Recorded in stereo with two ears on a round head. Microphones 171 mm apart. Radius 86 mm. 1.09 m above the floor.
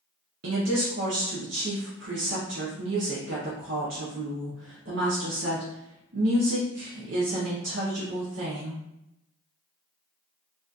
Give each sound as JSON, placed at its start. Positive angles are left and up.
{"t": 0.4, "sound": "a woman speaking", "side_deg": -70, "distance_m": 0.7}